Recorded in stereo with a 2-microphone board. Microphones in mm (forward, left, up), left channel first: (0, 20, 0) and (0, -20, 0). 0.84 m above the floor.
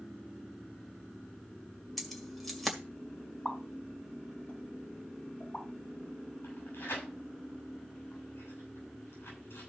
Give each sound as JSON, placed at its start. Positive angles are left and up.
{"t": 2.0, "sound": "keys jangling", "side_deg": 0, "distance_m": 2.0}
{"t": 3.5, "sound": "a pop", "side_deg": 35, "distance_m": 3.5}
{"t": 6.4, "sound": "tearing paper", "side_deg": 75, "distance_m": 6.5}